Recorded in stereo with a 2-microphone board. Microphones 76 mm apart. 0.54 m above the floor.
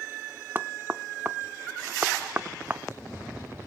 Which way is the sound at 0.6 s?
25° right (ahead or behind).